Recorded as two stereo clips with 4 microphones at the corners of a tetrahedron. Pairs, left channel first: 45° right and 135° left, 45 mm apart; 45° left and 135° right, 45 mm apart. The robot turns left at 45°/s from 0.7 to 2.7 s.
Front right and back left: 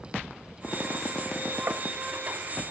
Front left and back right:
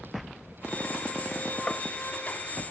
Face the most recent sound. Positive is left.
turn(degrees=60)